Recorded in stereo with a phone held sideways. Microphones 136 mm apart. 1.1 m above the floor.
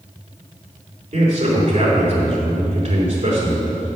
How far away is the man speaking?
About 3.5 m.